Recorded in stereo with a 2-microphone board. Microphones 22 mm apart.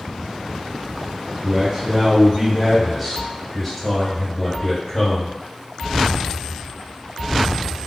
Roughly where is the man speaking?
Centre.